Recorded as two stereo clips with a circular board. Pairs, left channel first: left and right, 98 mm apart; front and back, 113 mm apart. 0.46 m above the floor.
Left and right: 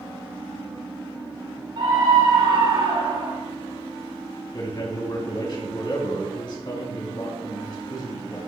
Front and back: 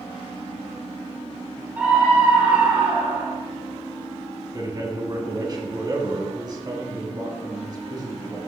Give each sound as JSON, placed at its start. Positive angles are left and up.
{"t": 1.8, "sound": "a scream", "azimuth_deg": -105, "distance_m": 2.5}
{"t": 4.5, "sound": "a man speaking", "azimuth_deg": 130, "distance_m": 3.0}